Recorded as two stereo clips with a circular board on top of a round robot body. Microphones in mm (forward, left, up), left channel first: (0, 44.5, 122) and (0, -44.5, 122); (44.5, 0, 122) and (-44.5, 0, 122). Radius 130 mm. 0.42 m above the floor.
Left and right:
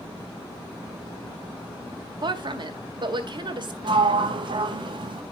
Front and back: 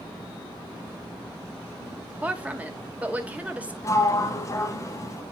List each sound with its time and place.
2.2 s a woman speaking: 110° right, 2.0 m
3.8 s a sliding door: 60° right, 1.2 m